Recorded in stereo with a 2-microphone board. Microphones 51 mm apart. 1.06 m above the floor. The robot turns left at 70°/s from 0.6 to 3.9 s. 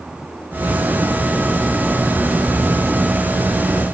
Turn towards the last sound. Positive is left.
No sound to turn to.